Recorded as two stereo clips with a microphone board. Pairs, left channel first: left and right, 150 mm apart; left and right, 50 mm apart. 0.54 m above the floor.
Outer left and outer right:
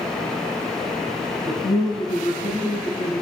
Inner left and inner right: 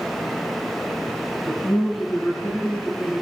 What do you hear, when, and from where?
1.5 s a man speaking: 35° left (ahead or behind), 6 m